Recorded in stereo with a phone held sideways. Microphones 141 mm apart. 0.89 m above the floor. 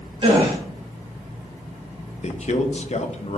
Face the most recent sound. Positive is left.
turn(degrees=55)  # may be behind; listen again after turning